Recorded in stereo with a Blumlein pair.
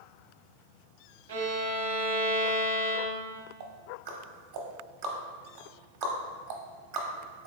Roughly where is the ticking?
Ahead right.